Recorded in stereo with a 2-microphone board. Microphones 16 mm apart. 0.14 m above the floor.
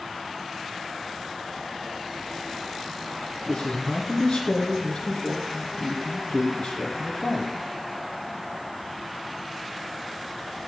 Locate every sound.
3.5 s a man speaking: 45° left (ahead or behind), 2.5 m